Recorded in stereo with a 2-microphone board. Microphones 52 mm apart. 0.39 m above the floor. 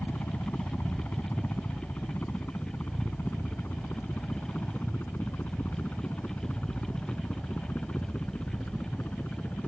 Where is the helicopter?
45° left (ahead or behind); by 9.7 s 40° left (ahead or behind).